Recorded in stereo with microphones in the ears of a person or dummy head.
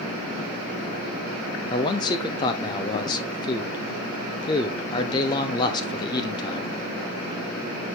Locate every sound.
1.7 s a man speaking: 20° left (ahead or behind), 0.5 m